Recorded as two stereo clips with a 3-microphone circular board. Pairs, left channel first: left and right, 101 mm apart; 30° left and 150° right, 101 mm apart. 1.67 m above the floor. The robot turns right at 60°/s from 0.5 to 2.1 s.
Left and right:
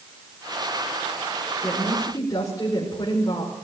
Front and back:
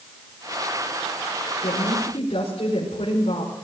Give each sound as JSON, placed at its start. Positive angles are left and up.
{"t": 1.6, "sound": "a woman speaking", "azimuth_deg": 10, "distance_m": 5.0}